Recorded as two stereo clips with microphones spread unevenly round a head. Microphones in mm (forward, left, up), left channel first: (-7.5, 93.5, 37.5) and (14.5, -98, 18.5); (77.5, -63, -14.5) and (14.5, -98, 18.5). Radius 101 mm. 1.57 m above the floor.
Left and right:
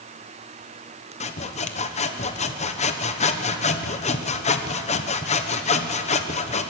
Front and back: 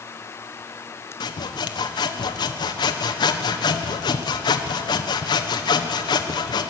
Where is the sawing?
40° left, 1.2 m.